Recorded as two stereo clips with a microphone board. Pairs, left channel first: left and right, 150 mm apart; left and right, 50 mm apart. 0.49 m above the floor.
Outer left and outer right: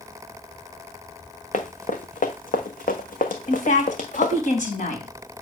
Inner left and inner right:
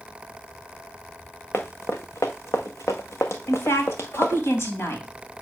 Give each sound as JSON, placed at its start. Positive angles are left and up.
{"t": 1.5, "sound": "running footsteps", "side_deg": 55, "distance_m": 1.6}
{"t": 3.5, "sound": "a woman speaking", "side_deg": 60, "distance_m": 3.0}